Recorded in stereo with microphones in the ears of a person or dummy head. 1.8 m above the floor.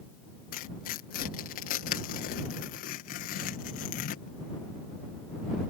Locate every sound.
0.5 s tearing paper: 50° left (ahead or behind)